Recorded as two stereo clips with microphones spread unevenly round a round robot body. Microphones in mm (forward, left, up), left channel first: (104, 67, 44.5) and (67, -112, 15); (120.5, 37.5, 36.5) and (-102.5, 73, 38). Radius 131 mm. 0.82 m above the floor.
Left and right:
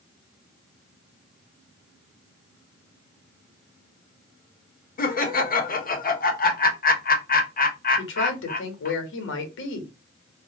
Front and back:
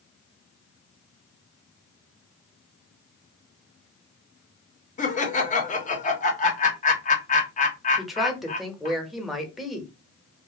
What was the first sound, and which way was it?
Laughter, 40° left.